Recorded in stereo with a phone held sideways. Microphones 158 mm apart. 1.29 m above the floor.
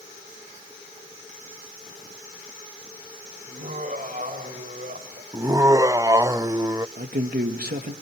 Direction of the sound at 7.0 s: 80° right.